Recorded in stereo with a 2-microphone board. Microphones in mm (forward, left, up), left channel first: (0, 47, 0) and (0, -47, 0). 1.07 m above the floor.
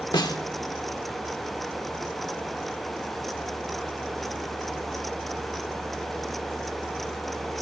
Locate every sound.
0.1 s a snare drum: 50° left (ahead or behind), 1.1 m